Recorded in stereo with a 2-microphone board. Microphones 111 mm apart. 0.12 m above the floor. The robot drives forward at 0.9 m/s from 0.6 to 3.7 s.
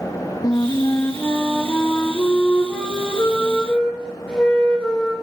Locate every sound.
0.4 s a flute: 35° left (ahead or behind), 0.9 m; by 5.1 s 10° left (ahead or behind), 3 m